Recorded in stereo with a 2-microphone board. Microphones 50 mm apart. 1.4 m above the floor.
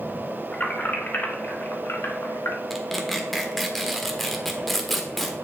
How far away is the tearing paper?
About 1.3 m.